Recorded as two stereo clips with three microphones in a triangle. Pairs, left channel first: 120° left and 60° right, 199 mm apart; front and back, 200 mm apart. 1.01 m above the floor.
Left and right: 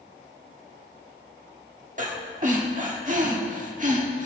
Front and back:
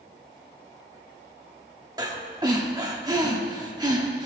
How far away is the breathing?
About 1.4 m.